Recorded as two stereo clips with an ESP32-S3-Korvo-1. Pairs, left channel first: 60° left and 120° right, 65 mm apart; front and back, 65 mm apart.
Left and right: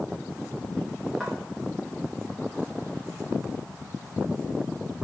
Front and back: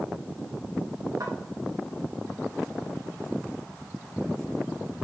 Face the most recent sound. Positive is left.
turn(degrees=150)